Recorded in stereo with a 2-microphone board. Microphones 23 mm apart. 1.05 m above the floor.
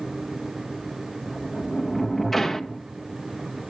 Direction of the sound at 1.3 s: 10° left (ahead or behind).